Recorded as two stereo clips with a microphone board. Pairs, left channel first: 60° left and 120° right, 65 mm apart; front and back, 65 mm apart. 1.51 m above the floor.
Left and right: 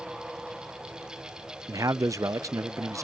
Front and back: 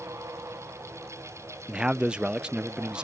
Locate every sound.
1.7 s a man speaking: 110° right